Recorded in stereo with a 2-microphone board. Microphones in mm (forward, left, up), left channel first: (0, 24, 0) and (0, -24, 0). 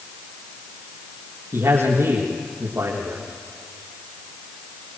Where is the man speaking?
60° right (ahead or behind), 6 m.